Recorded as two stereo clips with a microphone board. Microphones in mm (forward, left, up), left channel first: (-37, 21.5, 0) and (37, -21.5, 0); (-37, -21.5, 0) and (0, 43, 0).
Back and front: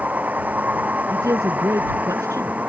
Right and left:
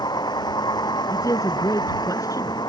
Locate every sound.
0.0 s a vehicle: 105° right
1.1 s a man speaking: 80° right